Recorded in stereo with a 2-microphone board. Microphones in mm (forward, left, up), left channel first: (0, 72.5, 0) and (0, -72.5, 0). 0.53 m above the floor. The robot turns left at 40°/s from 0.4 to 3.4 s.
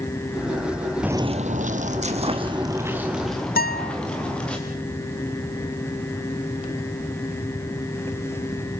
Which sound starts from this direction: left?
A guitar, at 3.6 s.